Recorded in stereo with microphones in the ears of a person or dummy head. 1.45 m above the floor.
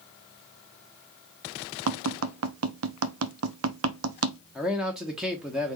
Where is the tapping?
75° right (ahead or behind), 0.7 m.